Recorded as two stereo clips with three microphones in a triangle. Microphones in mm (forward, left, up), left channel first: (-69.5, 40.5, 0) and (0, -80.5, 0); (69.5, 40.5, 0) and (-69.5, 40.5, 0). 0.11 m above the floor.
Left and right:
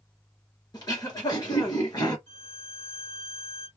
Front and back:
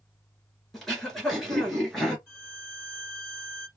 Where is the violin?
105° left, 2 m.